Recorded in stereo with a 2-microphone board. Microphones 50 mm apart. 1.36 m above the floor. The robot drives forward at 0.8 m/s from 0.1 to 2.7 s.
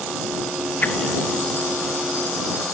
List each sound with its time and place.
0.8 s a whoosh: 35° left (ahead or behind), 0.8 m; by 1.0 s 40° left (ahead or behind), 0.7 m